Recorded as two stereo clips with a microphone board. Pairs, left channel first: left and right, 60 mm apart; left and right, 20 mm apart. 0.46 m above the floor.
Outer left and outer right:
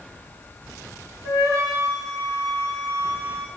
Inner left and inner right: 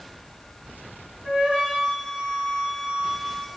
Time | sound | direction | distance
1.2 | a flute | 70° right (ahead or behind) | 6.5 m